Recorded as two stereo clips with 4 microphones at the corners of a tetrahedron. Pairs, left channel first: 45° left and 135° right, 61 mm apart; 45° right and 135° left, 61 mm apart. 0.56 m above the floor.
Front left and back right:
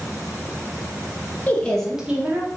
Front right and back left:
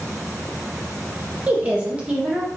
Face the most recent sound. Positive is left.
turn(degrees=-155)